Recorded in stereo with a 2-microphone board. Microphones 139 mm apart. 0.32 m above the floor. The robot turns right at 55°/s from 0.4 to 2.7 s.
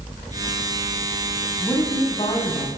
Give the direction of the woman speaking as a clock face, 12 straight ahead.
12 o'clock.